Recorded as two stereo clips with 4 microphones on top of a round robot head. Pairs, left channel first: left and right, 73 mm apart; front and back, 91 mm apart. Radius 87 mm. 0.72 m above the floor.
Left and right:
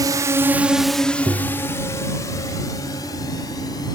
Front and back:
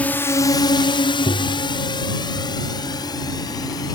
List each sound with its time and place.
0.0 s a drone: 75° right; by 4.0 s 45° left
1.3 s tapping: 35° right